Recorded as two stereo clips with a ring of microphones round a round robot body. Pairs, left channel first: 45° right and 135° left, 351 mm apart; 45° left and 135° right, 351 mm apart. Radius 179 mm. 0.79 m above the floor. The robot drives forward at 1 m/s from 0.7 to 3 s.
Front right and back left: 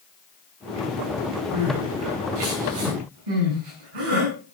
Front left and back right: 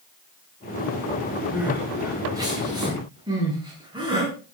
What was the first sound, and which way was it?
Crying, 140° left.